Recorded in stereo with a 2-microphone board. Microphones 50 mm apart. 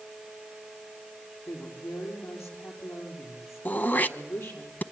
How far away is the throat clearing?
About 0.7 m.